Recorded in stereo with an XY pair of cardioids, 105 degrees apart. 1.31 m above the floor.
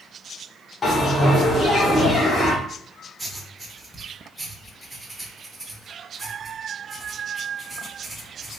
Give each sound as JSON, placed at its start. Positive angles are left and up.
{"t": 0.8, "sound": "a bell", "azimuth_deg": 40, "distance_m": 1.2}
{"t": 3.2, "sound": "writing", "azimuth_deg": -15, "distance_m": 0.9}